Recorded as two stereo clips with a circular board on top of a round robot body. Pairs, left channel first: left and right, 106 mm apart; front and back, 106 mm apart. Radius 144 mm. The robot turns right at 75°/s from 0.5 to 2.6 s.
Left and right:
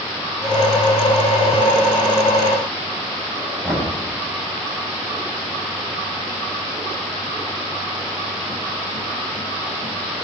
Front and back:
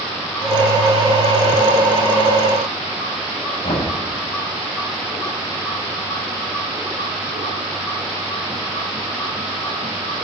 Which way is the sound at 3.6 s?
15° right.